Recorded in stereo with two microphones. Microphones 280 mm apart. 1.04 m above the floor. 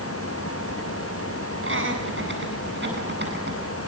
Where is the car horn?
I don't hear a car horn.